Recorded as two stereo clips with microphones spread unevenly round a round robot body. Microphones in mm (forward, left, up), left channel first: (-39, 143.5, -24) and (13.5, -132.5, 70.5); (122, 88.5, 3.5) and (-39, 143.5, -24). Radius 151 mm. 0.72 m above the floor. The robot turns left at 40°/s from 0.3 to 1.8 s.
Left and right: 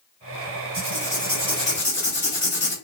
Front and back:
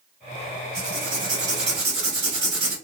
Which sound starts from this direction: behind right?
Writing, at 0.7 s.